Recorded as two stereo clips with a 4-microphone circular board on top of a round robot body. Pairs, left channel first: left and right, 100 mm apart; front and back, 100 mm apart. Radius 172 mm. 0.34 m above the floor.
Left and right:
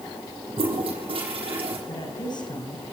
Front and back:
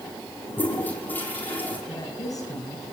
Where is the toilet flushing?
70° right, 6 m.